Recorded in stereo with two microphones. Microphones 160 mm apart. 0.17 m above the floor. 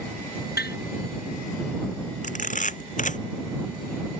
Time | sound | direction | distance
0.6 | tapping | 85° left | ?
2.2 | a camera shutter | 50° left (ahead or behind) | ?